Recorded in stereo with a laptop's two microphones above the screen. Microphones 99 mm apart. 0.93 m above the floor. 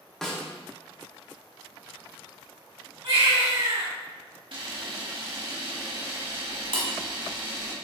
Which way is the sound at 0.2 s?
5° left (ahead or behind).